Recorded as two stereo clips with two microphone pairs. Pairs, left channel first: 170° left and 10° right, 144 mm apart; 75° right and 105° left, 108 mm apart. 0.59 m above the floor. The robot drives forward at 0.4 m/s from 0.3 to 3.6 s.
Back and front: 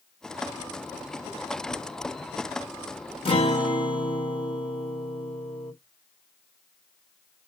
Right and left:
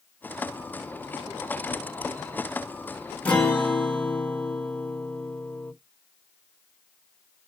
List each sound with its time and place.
3.2 s a guitar: 150° right, 1.3 m